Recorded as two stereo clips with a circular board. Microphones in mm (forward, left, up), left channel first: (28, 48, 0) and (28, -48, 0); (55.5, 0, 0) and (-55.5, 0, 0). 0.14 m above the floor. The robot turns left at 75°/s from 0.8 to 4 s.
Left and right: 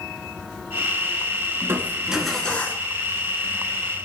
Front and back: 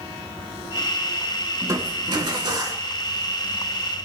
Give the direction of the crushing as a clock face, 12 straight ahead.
4 o'clock.